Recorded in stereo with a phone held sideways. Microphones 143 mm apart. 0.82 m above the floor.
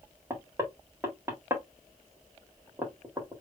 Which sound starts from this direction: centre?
Knocking, at 0.3 s.